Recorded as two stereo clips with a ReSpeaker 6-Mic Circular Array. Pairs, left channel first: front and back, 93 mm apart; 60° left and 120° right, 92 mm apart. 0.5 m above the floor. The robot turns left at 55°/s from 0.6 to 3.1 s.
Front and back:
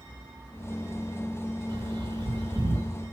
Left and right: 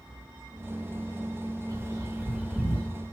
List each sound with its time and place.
1.7 s a bird: 150° right, 2.5 m; by 2.9 s 145° left, 2.5 m